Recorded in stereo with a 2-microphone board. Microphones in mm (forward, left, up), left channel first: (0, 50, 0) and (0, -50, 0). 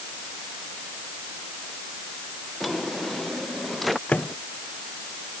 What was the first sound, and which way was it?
A drawer, centre (ahead or behind).